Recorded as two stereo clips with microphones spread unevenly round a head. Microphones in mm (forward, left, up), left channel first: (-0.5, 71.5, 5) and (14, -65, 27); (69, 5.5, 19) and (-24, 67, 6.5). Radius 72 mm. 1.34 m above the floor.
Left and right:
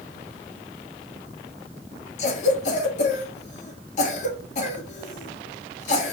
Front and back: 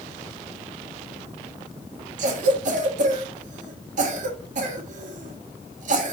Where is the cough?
140° left, 1.9 m.